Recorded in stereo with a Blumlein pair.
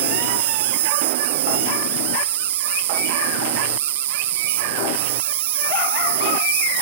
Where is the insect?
55° right.